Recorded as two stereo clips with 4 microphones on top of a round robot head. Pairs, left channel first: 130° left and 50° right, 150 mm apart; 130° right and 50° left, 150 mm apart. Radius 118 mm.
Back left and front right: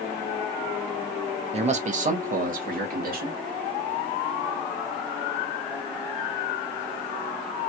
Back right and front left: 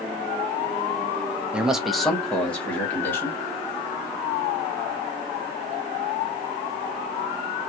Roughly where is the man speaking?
Ahead right.